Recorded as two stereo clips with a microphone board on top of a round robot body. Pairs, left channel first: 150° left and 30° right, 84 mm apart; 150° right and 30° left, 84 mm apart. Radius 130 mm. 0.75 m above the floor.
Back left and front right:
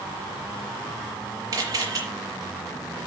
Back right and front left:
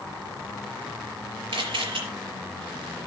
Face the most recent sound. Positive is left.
turn(degrees=20)